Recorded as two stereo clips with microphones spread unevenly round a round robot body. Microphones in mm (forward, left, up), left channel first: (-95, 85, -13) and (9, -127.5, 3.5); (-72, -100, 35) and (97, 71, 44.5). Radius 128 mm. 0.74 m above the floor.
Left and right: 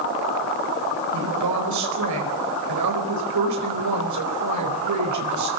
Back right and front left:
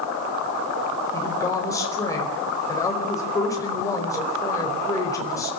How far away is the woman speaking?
About 4.5 m.